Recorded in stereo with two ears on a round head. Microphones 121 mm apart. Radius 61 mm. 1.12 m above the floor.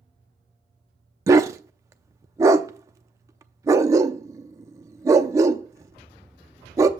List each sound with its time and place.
1.3 s a dog barking: 25° right (ahead or behind), 0.6 m